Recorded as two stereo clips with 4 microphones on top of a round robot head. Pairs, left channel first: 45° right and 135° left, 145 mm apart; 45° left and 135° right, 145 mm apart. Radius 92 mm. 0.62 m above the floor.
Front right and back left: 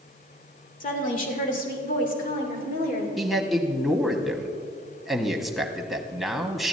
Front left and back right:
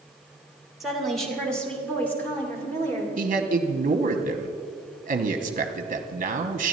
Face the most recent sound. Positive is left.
turn(degrees=-135)